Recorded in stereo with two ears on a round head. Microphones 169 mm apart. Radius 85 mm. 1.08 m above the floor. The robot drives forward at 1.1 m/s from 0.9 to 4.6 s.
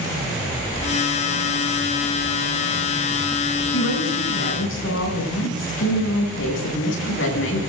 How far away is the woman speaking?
About 9.5 m.